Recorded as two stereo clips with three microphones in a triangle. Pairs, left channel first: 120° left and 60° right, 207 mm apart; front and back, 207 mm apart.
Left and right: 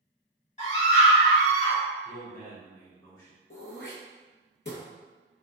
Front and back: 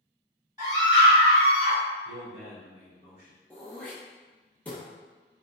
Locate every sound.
0.6 s a scream: 125° left, 1.8 m; by 1.8 s 160° left, 1.8 m
2.0 s a man speaking: 45° left, 1.4 m
3.5 s throat clearing: 85° left, 0.8 m